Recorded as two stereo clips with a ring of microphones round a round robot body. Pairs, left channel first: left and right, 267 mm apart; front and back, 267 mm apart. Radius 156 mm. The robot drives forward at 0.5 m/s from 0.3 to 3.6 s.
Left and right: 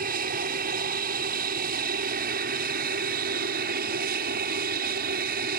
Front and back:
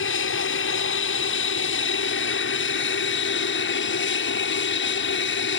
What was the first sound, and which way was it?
An aircraft, 35° right.